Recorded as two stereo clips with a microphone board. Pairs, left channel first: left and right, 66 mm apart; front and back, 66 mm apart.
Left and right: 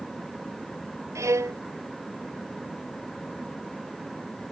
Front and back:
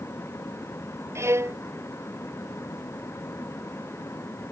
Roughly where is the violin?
Behind right.